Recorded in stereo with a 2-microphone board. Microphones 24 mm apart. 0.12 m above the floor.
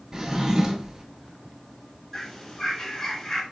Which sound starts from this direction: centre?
A bird, at 2.1 s.